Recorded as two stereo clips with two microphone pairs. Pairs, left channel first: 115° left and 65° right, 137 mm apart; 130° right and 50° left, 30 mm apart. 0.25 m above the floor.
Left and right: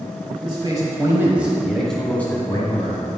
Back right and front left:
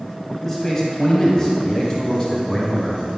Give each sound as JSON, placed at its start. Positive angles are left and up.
{"t": 0.4, "sound": "a man speaking", "azimuth_deg": -70, "distance_m": 1.2}